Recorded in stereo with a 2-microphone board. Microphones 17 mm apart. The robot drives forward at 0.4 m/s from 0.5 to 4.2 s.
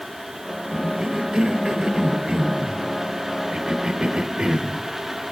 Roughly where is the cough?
Right.